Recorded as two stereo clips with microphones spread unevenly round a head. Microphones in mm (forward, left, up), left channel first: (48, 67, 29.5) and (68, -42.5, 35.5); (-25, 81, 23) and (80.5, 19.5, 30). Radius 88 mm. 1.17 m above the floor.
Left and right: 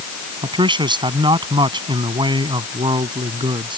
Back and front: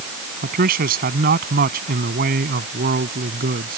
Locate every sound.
0.4 s a man speaking: 30° right